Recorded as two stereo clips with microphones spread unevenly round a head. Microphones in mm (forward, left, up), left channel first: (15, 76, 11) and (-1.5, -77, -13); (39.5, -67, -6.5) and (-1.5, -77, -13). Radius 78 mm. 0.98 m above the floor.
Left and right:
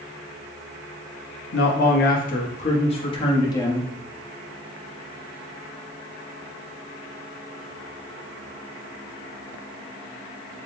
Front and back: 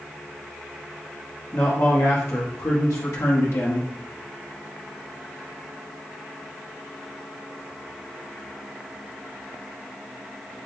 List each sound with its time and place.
1.5 s a man speaking: 65° left, 1.1 m; by 3.9 s 10° left, 1.5 m